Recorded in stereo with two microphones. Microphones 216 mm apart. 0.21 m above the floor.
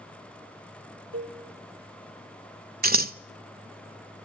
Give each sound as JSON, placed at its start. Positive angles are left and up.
{"t": 1.1, "sound": "a cowbell", "side_deg": -70, "distance_m": 3.5}
{"t": 2.8, "sound": "scissors", "side_deg": -45, "distance_m": 0.7}